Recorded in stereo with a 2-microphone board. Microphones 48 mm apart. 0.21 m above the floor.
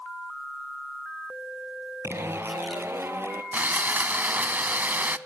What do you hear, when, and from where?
2.0 s a zipper: 65° right (ahead or behind), 1.6 m
3.5 s sawing: 40° right (ahead or behind), 0.6 m